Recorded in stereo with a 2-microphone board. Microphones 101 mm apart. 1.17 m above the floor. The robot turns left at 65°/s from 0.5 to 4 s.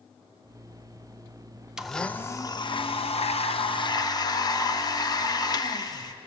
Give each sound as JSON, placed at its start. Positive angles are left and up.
{"t": 1.8, "sound": "a blender", "azimuth_deg": -175, "distance_m": 0.5}